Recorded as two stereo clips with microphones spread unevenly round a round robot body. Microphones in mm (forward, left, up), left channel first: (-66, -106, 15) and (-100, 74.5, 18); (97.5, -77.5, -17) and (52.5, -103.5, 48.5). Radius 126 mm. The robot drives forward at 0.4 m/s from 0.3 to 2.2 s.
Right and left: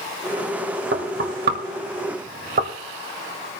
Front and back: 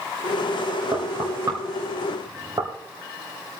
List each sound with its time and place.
0.9 s knocking: 110° left, 1.7 m; by 2.7 s 125° left, 1.9 m